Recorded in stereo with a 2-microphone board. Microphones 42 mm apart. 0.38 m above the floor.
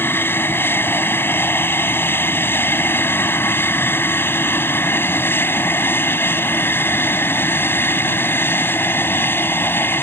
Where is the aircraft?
60° left (ahead or behind).